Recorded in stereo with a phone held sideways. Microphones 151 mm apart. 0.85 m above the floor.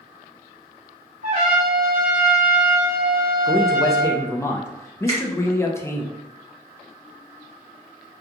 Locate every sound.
1.2 s a trumpet: 60° right (ahead or behind), 1.9 m
3.5 s a man speaking: 15° left (ahead or behind), 0.5 m
5.1 s a finger snap: 40° right (ahead or behind), 1.2 m